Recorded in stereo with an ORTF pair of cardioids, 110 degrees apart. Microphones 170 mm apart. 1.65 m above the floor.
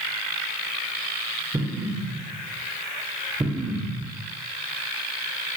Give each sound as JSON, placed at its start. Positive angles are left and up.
{"t": 1.5, "sound": "an explosion", "azimuth_deg": -15, "distance_m": 2.5}